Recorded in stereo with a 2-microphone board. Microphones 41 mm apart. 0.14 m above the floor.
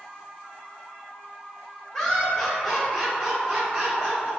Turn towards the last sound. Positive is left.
turn(degrees=-30)  # may be behind; listen again after turning